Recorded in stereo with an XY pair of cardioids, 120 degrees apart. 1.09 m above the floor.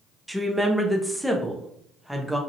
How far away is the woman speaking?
About 0.7 m.